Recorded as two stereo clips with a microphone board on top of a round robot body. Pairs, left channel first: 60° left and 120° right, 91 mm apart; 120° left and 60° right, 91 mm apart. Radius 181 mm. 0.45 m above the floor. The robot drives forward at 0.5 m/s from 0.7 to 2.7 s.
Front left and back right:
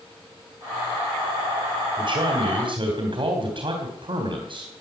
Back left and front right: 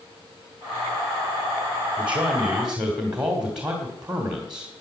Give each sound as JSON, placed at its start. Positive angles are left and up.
{"t": 2.0, "sound": "a man speaking", "azimuth_deg": -135, "distance_m": 2.5}